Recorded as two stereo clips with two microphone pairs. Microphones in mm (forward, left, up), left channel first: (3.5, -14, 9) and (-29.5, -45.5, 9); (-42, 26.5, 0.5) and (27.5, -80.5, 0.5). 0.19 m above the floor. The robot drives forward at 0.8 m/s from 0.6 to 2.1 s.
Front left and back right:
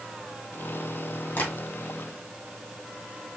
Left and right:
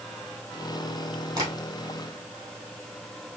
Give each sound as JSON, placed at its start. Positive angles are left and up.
{"t": 1.4, "sound": "tapping", "azimuth_deg": 0, "distance_m": 2.5}